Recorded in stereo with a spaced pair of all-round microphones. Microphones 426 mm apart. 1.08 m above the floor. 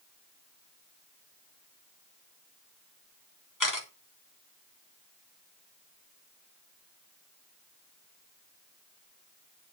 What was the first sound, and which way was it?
A camera shutter, 45° left (ahead or behind).